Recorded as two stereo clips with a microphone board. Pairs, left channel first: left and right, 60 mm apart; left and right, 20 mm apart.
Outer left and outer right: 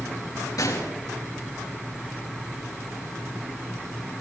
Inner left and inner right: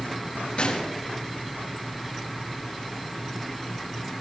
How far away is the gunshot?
About 4 m.